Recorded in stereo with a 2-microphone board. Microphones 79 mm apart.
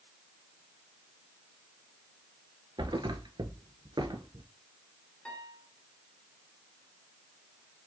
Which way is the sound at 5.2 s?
15° left (ahead or behind).